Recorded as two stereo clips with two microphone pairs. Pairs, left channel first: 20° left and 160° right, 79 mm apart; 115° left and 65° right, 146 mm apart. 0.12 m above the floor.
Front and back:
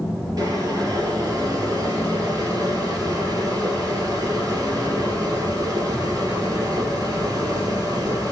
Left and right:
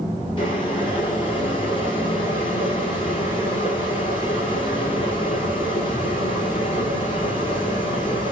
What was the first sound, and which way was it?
Boiling, 165° left.